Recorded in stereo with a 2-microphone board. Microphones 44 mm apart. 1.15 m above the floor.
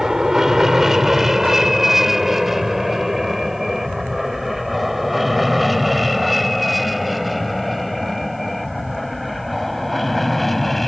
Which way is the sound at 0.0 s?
10° right (ahead or behind).